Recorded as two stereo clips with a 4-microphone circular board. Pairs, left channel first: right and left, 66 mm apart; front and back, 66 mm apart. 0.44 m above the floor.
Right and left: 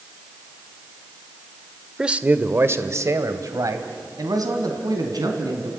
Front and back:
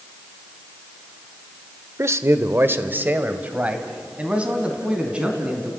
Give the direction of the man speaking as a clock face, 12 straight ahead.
7 o'clock.